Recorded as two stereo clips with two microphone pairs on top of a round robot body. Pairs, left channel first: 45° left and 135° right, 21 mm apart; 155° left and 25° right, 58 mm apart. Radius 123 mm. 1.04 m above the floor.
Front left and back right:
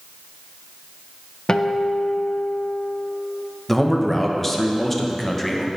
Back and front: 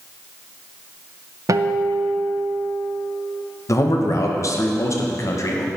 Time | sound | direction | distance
1.5 | a guitar | 5° right | 0.5 m
3.7 | a man speaking | 135° left | 1.2 m